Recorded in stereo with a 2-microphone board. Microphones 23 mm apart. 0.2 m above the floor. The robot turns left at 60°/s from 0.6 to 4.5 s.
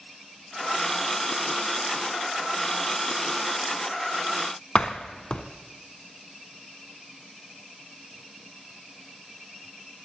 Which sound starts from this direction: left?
A door slam, at 4.8 s.